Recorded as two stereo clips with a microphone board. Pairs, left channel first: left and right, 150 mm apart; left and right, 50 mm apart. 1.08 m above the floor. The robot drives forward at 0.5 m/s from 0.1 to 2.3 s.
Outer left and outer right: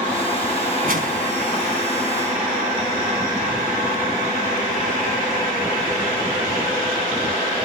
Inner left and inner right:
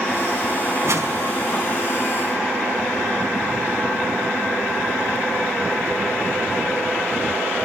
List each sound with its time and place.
0.8 s a whoosh: 70° right (ahead or behind), 4.5 m